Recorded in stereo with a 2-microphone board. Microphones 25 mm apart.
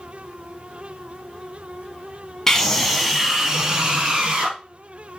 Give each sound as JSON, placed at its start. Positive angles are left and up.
{"t": 2.5, "sound": "a scream", "side_deg": 20, "distance_m": 1.1}